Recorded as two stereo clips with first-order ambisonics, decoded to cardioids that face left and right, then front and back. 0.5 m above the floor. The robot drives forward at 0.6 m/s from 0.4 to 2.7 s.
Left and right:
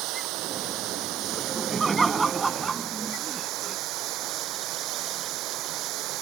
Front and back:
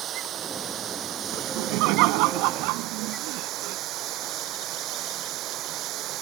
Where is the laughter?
170° right.